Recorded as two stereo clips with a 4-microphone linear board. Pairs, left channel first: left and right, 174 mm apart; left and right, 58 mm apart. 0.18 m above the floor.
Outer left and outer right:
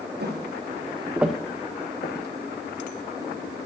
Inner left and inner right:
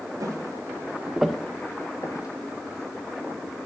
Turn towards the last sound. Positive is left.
turn(degrees=80)